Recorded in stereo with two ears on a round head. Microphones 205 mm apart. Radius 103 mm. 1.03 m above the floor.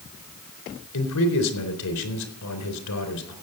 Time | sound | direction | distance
0.9 | a man speaking | 85° left | 3.5 m